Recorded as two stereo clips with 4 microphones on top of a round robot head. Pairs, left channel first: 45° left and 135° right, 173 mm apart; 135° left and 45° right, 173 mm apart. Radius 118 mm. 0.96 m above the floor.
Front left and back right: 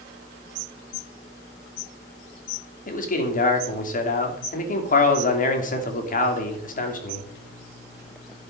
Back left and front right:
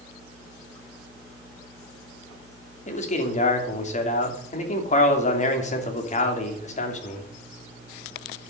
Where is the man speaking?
85° left, 2.5 m.